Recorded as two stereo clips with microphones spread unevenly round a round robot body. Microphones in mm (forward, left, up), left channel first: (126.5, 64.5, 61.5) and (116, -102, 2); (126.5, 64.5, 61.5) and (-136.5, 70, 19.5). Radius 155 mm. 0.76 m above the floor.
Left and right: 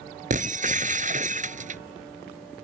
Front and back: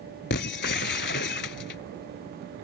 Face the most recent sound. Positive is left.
turn(degrees=-40)